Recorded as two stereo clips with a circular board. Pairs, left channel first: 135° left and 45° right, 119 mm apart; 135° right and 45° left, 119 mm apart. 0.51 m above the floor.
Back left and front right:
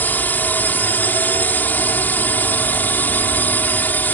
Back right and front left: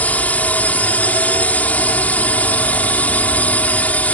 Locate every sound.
0.0 s a drone: 175° left